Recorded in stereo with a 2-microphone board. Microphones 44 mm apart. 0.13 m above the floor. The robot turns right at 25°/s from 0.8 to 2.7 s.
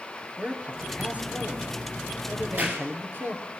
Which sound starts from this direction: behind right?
A man speaking, at 0.4 s.